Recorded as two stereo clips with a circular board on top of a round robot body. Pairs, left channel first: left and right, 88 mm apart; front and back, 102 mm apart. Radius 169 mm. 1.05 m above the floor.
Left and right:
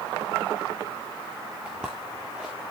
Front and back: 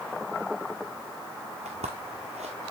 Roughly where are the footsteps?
Behind.